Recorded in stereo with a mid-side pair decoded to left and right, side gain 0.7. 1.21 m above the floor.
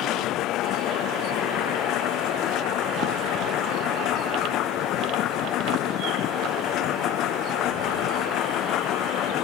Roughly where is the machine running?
Ahead left.